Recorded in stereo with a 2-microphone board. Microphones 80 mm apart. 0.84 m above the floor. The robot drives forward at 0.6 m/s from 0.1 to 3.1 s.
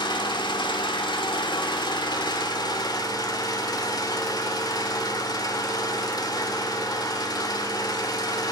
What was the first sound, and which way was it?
An engine running, 70° left (ahead or behind).